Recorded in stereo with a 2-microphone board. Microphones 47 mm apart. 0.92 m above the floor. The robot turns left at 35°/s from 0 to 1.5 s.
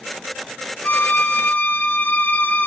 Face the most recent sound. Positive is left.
turn(degrees=40)  # may be behind; listen again after turning